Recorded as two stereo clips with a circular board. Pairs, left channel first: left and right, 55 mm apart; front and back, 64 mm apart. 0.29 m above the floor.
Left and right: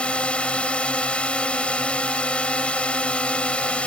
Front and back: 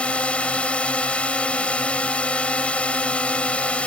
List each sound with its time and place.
0.0 s a drone: 45° left